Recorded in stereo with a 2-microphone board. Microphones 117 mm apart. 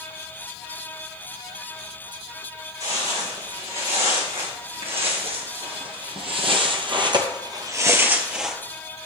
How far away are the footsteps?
About 3.5 m.